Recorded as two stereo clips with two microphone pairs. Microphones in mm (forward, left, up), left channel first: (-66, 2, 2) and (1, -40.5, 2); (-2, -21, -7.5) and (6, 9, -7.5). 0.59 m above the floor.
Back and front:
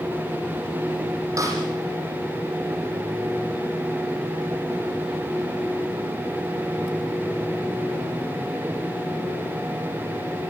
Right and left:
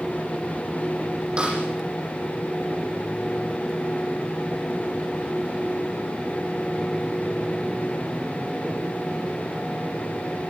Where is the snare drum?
15° left, 6.5 m.